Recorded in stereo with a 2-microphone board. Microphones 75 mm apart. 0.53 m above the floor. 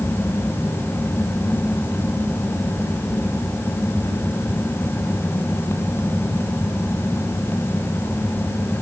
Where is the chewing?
No chewing in this recording.